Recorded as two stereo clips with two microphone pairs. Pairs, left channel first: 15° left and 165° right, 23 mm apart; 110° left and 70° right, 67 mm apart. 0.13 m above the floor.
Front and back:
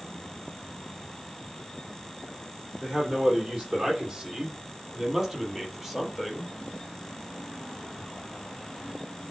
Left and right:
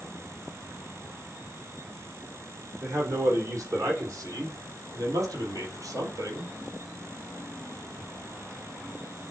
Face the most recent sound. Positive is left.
turn(degrees=-80)